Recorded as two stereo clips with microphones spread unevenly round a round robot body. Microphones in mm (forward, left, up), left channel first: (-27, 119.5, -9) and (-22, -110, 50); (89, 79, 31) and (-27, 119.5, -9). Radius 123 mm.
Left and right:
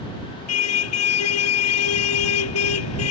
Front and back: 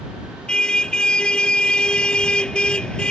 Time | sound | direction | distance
0.5 | a car horn | 65° left | ?